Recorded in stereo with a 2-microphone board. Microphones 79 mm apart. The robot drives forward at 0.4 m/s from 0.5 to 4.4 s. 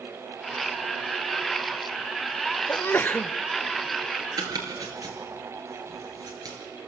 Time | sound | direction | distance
2.7 | a sneeze | 25° left (ahead or behind) | 0.6 m
4.4 | chopping | 55° right (ahead or behind) | 4 m